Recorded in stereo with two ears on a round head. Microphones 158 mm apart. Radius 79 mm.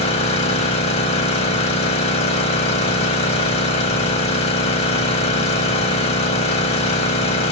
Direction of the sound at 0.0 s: 35° left (ahead or behind).